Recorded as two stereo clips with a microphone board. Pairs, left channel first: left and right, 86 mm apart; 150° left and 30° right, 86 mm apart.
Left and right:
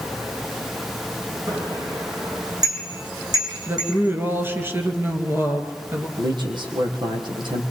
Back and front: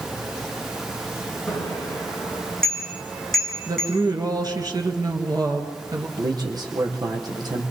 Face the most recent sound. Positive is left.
turn(degrees=-65)